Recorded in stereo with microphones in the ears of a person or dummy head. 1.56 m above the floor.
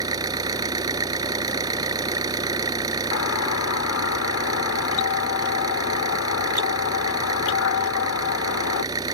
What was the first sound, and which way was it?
An engine running, 20° right (ahead or behind).